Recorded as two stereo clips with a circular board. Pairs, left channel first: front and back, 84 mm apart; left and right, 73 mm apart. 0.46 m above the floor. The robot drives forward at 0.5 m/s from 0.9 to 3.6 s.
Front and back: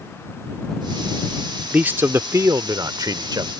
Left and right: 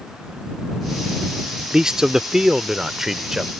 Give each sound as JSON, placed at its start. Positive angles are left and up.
{"t": 1.7, "sound": "a man speaking", "azimuth_deg": -150}